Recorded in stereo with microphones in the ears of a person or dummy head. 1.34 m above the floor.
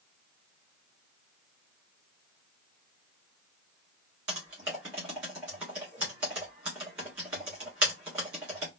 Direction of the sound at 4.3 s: 5° right (ahead or behind).